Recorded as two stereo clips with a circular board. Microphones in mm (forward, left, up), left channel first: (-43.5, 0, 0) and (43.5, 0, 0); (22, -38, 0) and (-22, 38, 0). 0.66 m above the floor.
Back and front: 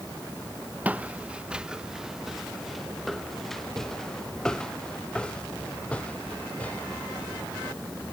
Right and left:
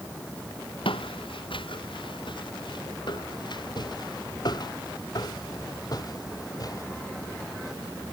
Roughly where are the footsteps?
Right.